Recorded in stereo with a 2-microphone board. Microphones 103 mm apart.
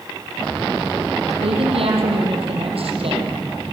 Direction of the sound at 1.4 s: 70° right (ahead or behind).